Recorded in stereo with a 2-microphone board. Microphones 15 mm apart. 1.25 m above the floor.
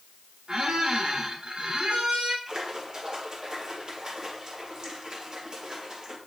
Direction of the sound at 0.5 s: 60° right (ahead or behind).